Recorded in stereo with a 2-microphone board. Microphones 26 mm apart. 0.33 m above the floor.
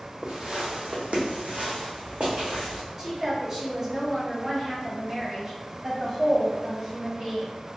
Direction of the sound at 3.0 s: 25° right (ahead or behind).